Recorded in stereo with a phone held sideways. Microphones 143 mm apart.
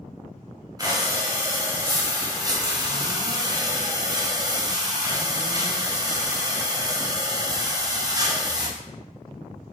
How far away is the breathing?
About 0.6 m.